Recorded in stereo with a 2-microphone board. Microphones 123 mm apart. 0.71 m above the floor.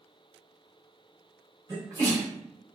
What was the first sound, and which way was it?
A sneeze, 25° right (ahead or behind).